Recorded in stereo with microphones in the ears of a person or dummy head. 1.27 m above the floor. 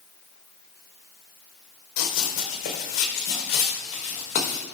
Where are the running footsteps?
45° left (ahead or behind), 3 m; by 4.6 s 40° left (ahead or behind), 5.5 m.